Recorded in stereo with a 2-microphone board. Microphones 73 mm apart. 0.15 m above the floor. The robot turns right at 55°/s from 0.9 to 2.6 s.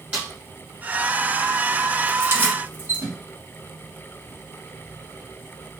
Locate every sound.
0.1 s a snare drum: 15° right (ahead or behind), 1.8 m
2.2 s keys jangling: 30° right (ahead or behind), 1.1 m; by 3.2 s 25° right (ahead or behind), 1.1 m